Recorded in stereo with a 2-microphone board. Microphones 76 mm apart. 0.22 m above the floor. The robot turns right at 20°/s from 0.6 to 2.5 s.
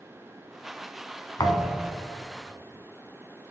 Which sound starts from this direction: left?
A thud, at 1.4 s.